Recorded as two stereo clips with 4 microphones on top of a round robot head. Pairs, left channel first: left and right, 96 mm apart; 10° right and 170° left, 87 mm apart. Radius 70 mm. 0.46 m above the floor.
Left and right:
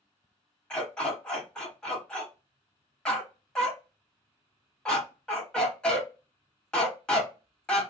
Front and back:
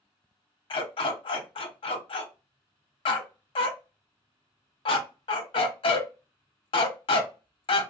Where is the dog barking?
10° left, 1.0 m.